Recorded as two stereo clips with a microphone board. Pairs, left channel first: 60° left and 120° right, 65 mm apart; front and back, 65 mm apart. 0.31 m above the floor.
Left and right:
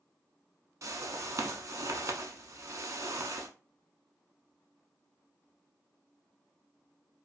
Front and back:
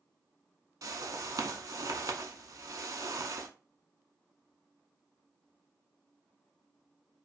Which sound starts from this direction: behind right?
A whoosh, at 0.8 s.